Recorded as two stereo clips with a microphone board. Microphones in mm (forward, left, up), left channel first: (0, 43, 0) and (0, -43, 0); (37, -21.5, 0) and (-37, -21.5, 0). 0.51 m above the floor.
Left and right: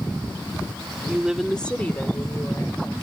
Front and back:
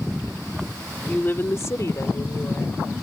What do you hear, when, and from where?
1.1 s a woman speaking: 45° right; by 2.9 s 40° left